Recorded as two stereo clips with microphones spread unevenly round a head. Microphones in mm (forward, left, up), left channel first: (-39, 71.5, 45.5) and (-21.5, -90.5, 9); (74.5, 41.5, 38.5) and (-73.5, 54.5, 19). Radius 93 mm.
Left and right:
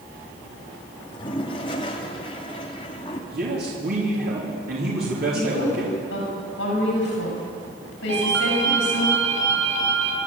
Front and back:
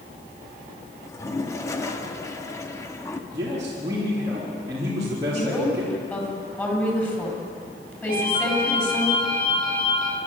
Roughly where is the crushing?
No crushing in this recording.